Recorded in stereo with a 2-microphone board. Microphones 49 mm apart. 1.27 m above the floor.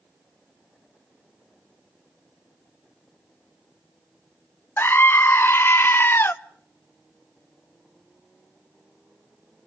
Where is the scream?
45° left (ahead or behind), 0.8 m.